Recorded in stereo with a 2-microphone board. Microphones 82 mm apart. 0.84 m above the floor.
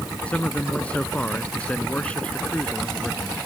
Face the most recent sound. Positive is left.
turn(degrees=15)  # may be behind; listen again after turning